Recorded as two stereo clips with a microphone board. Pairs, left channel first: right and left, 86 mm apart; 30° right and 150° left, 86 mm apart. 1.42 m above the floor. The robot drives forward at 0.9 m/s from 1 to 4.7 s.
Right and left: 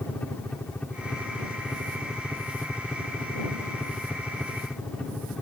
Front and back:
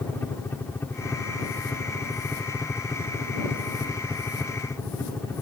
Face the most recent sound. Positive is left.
turn(degrees=-20)